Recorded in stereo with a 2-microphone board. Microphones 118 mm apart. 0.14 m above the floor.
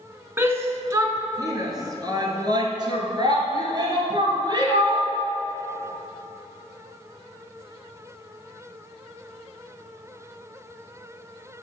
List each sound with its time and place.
0.4 s a shout: 20° right (ahead or behind), 1.3 m; by 5.1 s 40° right (ahead or behind), 3 m